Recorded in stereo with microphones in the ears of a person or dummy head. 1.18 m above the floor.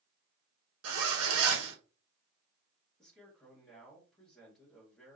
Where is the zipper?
75° right (ahead or behind), 1.4 m.